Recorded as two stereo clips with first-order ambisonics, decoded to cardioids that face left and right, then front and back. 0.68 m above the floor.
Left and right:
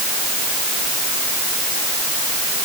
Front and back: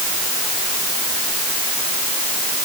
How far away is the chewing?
I don't hear chewing.